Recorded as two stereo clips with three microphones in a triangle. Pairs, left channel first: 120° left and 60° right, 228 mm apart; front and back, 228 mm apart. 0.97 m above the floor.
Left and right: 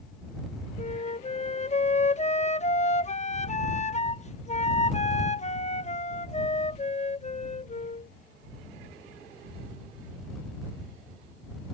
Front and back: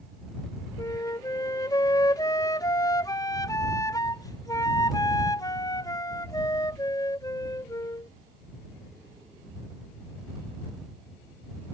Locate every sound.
0.8 s a flute: 75° left